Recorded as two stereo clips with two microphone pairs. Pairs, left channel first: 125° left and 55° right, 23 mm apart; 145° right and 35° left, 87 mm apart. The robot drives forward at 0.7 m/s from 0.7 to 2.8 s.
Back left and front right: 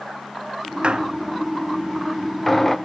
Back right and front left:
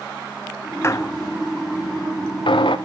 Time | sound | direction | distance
0.8 | a squeak | 90° right | 0.5 m